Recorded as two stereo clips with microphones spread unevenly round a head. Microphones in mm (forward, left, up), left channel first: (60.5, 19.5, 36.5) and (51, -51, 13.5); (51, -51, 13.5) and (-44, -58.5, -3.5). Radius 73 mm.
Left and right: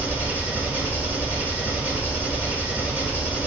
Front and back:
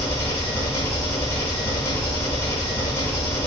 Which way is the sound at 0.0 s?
20° right.